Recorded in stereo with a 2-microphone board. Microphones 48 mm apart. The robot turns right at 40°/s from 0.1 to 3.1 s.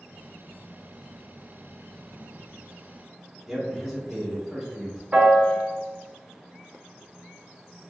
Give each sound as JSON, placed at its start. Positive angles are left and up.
{"t": 3.5, "sound": "a man speaking", "side_deg": -5, "distance_m": 1.0}
{"t": 5.1, "sound": "a piano", "side_deg": -30, "distance_m": 0.5}